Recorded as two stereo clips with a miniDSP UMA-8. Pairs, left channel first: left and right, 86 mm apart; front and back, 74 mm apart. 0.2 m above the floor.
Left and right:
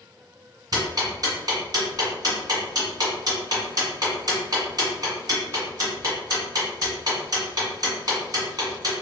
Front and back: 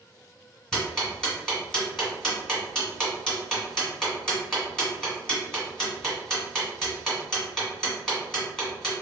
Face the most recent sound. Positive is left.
turn(degrees=-80)